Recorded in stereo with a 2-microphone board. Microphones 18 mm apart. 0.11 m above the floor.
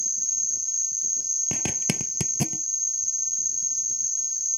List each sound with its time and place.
0.0 s an insect: 15° right (ahead or behind)
1.5 s a zipper: 20° right (ahead or behind)